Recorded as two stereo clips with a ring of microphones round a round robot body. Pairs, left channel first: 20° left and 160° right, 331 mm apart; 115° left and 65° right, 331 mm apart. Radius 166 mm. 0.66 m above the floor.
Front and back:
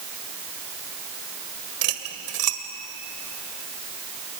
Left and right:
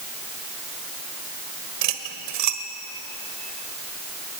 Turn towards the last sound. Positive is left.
turn(degrees=-110)